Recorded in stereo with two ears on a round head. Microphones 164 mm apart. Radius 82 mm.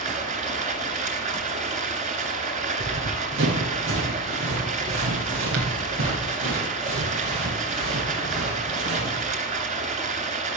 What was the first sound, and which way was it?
Running water, 45° right (ahead or behind).